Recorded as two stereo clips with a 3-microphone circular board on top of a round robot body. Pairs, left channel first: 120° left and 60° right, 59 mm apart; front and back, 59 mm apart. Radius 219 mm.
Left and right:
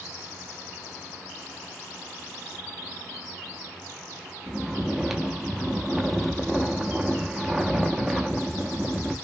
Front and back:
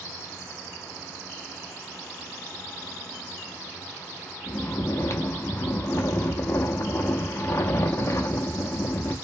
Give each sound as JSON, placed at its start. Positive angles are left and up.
{"t": 4.5, "sound": "snoring", "azimuth_deg": 25, "distance_m": 0.6}